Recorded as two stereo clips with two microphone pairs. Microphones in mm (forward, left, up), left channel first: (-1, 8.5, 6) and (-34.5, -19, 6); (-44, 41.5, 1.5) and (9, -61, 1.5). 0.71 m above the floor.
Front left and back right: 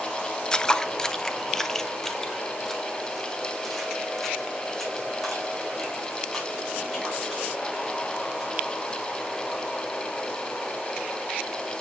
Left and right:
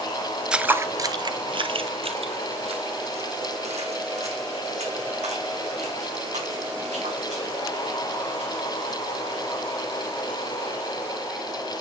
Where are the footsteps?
5° left, 0.7 m; by 9.0 s 45° right, 6 m.